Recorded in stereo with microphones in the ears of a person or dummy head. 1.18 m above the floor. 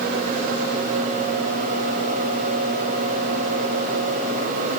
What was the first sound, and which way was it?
Only background noise.